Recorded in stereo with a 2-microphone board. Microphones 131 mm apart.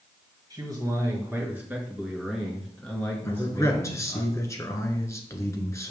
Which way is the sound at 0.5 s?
30° right (ahead or behind).